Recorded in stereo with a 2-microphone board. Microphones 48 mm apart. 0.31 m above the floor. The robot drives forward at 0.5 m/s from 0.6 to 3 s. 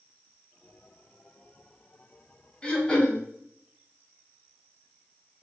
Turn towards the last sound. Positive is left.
turn(degrees=20)  # may be behind; listen again after turning